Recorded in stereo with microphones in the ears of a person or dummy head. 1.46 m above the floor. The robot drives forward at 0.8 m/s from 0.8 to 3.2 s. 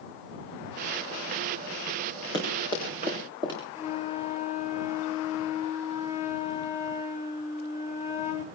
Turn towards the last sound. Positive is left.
turn(degrees=35)  # may be behind; listen again after turning